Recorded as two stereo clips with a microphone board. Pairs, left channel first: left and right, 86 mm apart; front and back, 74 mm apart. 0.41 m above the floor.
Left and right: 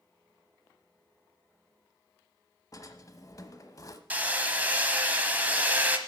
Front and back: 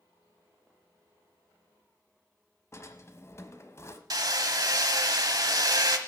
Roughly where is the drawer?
Ahead left.